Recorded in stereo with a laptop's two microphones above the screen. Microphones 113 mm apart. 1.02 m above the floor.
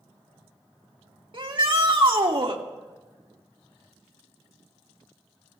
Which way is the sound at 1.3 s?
50° right (ahead or behind).